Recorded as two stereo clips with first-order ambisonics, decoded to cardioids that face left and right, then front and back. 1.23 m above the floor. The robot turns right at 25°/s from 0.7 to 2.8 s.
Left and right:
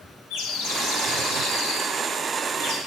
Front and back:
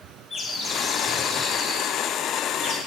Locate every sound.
0.3 s a bird: 70° left, 1.4 m; by 2.8 s 125° left, 1.4 m